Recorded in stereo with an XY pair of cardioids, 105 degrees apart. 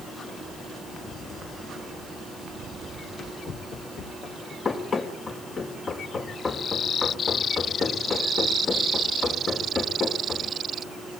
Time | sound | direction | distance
2.9 | running footsteps | 60° left | 4.5 m
4.7 | running footsteps | 45° left | 4.5 m